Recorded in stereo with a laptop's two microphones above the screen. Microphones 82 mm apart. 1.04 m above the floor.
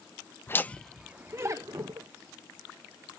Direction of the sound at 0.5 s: 30° left (ahead or behind).